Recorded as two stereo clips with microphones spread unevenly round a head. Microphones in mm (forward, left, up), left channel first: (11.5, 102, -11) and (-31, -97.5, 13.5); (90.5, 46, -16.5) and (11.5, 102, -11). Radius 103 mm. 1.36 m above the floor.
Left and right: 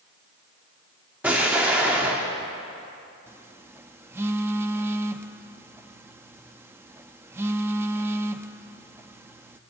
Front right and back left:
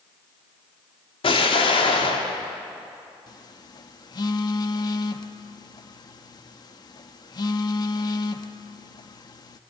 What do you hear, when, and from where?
1.2 s an explosion: 20° right, 3 m
3.3 s a phone buzzing: 40° right, 0.8 m